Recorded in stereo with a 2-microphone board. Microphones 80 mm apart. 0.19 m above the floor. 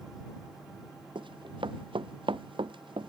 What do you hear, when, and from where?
1.1 s running footsteps: 75° right (ahead or behind)